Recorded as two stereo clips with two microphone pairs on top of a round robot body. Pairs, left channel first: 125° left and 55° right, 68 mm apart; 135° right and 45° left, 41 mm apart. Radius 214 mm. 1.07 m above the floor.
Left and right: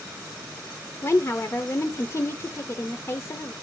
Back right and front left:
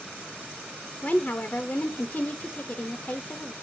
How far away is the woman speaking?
About 0.7 m.